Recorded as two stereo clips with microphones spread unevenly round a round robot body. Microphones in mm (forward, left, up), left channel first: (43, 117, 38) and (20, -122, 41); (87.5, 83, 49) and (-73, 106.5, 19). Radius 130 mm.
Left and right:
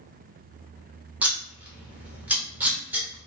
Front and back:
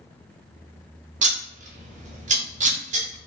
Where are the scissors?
Straight behind, 0.7 m.